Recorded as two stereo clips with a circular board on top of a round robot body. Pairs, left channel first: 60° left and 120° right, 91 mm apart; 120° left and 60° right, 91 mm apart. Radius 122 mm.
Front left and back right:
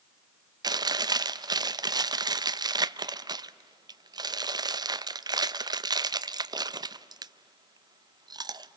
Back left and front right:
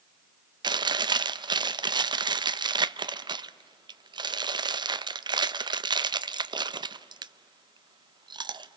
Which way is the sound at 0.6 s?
85° right.